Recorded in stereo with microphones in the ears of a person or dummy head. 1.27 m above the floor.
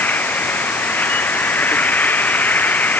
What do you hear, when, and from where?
0.0 s an insect: 5° left (ahead or behind)